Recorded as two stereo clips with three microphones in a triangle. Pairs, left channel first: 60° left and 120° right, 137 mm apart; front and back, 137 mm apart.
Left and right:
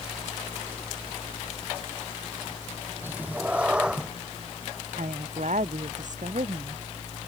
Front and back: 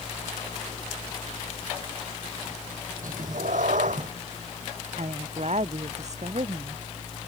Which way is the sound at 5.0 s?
145° right.